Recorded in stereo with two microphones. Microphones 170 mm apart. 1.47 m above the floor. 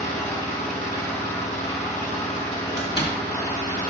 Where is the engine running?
45° left (ahead or behind), 2.5 m.